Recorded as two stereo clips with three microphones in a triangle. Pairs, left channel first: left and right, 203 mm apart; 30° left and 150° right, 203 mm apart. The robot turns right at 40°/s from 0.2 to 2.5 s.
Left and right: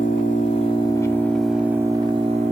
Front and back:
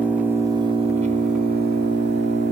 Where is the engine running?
130° left, 1.5 m; by 2.5 s 140° right, 1.5 m.